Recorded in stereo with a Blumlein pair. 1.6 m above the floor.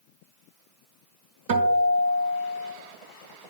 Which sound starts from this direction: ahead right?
A guitar, at 1.5 s.